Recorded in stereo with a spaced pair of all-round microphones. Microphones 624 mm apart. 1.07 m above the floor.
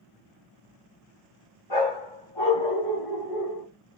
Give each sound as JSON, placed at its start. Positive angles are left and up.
{"t": 1.7, "sound": "a dog barking", "side_deg": 50, "distance_m": 2.5}